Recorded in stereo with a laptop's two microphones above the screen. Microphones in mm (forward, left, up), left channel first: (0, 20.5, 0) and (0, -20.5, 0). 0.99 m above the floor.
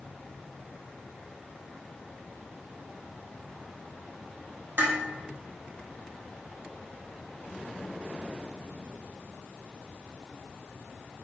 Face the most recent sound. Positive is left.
turn(degrees=-70)  # may be behind; listen again after turning